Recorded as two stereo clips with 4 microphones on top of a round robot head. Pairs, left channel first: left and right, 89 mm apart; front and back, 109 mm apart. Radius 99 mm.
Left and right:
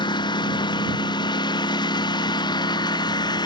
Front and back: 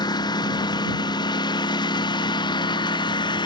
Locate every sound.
0.0 s a lawn mower: 55° left; by 3.5 s 50° left